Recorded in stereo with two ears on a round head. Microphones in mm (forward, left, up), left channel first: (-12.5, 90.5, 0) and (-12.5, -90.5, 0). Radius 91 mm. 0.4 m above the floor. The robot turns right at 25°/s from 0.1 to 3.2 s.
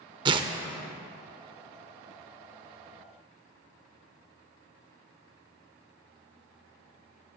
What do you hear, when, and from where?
0.2 s tearing paper: 25° right (ahead or behind), 0.6 m